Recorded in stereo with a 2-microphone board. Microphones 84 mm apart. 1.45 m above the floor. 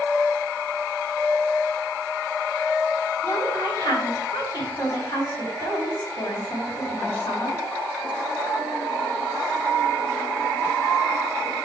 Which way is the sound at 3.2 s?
60° left (ahead or behind).